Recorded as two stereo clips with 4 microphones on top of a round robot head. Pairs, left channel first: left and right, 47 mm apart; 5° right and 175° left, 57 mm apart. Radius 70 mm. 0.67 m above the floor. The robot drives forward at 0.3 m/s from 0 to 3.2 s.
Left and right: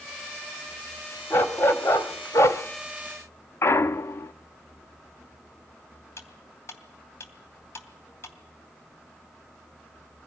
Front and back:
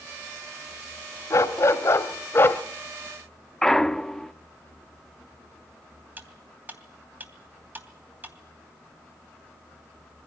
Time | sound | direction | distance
1.3 | a dog barking | 35° left | 1.3 m
3.6 | a clunk | 75° left | 0.6 m
6.2 | cutlery clinking | 115° left | 2.5 m